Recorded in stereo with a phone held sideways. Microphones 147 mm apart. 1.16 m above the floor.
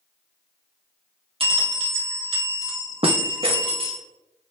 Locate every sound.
1.4 s a bell: 40° right (ahead or behind), 0.8 m